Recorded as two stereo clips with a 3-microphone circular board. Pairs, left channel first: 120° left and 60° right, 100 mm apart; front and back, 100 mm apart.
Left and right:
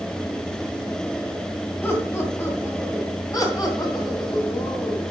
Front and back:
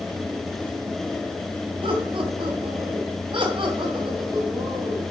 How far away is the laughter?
About 2.5 m.